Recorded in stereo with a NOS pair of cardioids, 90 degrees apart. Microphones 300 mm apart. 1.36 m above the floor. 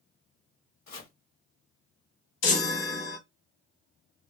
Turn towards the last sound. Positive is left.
turn(degrees=65)